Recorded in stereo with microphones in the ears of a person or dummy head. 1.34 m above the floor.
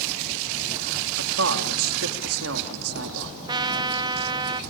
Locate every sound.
1.2 s a man speaking: 85° right, 3 m
3.5 s a trumpet: 20° right (ahead or behind), 0.9 m